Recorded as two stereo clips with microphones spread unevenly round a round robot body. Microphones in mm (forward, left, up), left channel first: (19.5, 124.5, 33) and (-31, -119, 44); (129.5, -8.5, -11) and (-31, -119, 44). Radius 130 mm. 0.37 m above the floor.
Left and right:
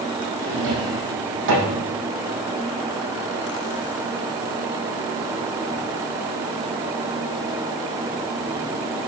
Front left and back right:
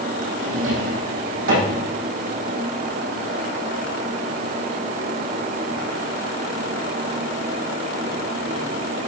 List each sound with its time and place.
0.4 s a drawer: 145° right, 6 m